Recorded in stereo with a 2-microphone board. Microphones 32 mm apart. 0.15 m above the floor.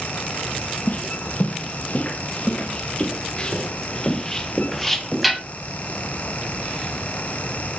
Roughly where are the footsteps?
Left.